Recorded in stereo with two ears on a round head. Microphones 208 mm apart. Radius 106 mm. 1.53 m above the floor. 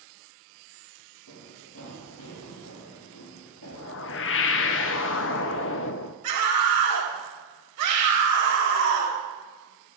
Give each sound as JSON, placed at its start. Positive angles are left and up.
{"t": 1.3, "sound": "running footsteps", "side_deg": 70, "distance_m": 4.5}
{"t": 3.7, "sound": "a whoosh", "side_deg": 55, "distance_m": 0.6}
{"t": 6.2, "sound": "a scream", "side_deg": -85, "distance_m": 4.0}